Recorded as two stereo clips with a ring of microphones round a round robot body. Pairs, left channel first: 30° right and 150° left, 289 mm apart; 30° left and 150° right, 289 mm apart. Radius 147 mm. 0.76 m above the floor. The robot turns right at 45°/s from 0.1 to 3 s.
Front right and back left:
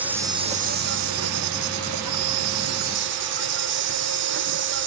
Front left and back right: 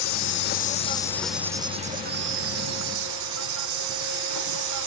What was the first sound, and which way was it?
An insect, 65° left.